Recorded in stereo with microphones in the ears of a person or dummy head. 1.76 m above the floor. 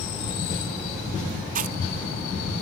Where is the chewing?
55° right (ahead or behind).